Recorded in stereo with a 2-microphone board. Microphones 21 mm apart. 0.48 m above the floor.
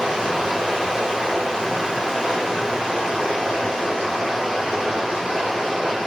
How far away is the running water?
About 1.1 m.